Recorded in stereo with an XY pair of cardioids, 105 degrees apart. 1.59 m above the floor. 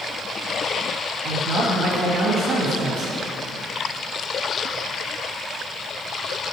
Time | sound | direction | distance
1.2 | a man speaking | 65° right | 2.5 m